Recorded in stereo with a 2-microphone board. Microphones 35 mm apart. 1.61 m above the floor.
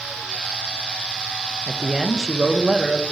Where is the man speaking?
20° right (ahead or behind), 0.8 m.